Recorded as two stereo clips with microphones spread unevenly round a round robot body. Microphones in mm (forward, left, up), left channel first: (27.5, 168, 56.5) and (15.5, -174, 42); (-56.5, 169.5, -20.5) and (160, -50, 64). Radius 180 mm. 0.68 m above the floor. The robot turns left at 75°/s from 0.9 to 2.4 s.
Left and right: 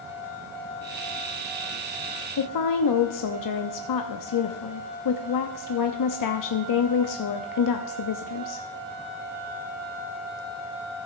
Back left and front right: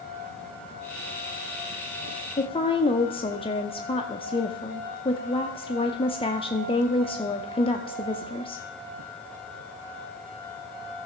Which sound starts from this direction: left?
A woman speaking, at 2.4 s.